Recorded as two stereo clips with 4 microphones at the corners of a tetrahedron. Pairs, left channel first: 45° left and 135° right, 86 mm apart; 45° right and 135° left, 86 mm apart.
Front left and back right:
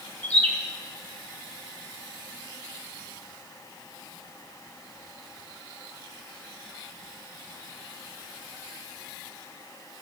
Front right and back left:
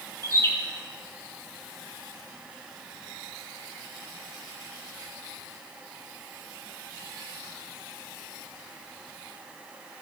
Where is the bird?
15° right, 2 m.